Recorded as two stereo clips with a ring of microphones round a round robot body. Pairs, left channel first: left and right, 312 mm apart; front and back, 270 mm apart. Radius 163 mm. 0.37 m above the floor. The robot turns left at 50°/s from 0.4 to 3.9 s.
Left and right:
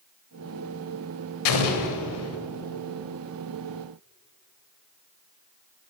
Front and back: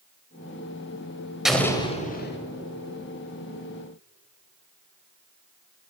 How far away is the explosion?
About 1.1 m.